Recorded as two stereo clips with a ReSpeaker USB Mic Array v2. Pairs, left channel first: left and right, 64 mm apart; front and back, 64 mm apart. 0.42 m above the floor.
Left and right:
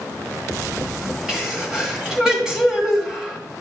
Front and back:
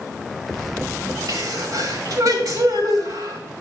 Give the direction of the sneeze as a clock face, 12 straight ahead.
6 o'clock.